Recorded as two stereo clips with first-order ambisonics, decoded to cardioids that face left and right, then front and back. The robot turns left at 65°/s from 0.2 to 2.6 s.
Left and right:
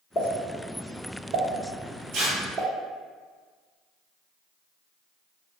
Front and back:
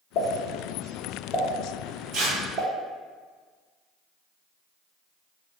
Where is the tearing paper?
130° right, 1.4 m; by 2.4 s 150° right, 1.4 m.